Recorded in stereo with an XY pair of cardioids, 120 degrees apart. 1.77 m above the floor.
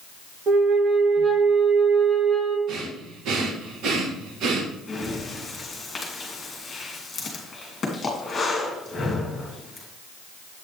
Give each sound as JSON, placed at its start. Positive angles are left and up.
{"t": 0.5, "sound": "a flute", "azimuth_deg": -40, "distance_m": 1.6}
{"t": 2.7, "sound": "breathing", "azimuth_deg": -70, "distance_m": 1.7}
{"t": 4.9, "sound": "breathing", "azimuth_deg": 25, "distance_m": 3.0}